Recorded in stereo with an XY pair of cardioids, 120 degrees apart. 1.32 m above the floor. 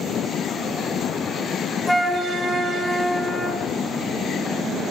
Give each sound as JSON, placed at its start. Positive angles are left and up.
{"t": 1.9, "sound": "a flute", "azimuth_deg": 5, "distance_m": 1.6}